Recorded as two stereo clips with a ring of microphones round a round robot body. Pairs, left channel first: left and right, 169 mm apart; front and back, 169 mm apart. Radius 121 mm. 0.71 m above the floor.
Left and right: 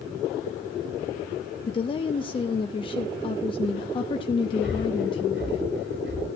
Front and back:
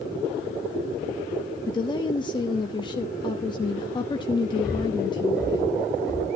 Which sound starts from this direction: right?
Breathing, at 4.6 s.